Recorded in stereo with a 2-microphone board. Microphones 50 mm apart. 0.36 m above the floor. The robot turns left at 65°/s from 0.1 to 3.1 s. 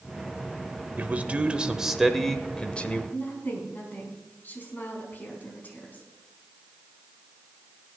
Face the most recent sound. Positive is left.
turn(degrees=40)  # may be behind; listen again after turning